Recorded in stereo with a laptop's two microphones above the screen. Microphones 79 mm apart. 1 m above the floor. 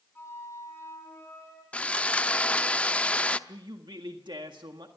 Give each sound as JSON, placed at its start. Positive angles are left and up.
{"t": 0.1, "sound": "a flute", "side_deg": 30, "distance_m": 7.0}
{"t": 1.7, "sound": "sawing", "side_deg": 15, "distance_m": 0.7}
{"t": 3.5, "sound": "a man speaking", "side_deg": -70, "distance_m": 1.6}